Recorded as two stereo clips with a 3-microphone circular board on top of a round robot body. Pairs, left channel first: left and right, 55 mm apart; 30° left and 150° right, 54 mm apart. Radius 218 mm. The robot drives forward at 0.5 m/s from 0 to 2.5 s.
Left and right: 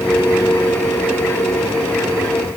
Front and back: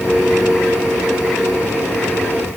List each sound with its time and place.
Only background noise.